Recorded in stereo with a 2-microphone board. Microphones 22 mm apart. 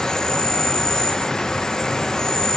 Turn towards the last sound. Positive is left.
turn(degrees=30)  # may be behind; listen again after turning